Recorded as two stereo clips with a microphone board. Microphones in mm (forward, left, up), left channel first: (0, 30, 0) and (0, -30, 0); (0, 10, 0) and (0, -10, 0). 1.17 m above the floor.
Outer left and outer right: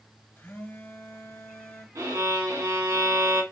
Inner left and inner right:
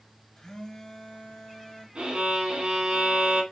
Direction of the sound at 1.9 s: 75° right (ahead or behind).